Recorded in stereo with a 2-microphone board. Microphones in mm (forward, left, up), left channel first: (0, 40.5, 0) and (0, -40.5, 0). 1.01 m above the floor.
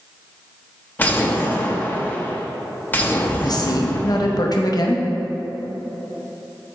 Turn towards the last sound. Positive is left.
turn(degrees=55)  # may be behind; listen again after turning